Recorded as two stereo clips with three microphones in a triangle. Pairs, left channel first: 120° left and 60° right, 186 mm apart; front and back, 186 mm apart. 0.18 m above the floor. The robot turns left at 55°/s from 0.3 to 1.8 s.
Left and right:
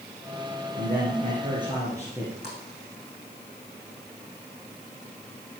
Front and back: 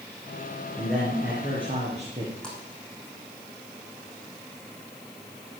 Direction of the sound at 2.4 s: 85° right.